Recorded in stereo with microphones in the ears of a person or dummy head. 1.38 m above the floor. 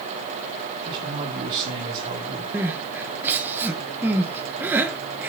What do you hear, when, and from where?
0.8 s a man speaking: 40° right (ahead or behind), 4.5 m
2.5 s crying: 15° right (ahead or behind), 1.3 m